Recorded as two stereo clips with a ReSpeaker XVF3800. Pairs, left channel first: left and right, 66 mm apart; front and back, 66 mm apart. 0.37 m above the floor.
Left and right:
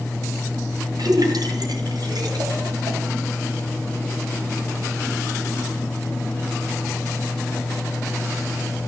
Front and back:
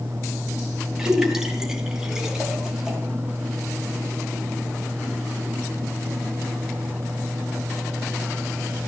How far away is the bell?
I don't hear a bell.